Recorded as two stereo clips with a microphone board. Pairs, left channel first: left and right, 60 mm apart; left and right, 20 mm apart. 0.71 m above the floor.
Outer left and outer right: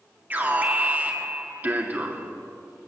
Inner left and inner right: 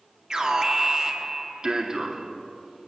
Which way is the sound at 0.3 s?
30° right (ahead or behind).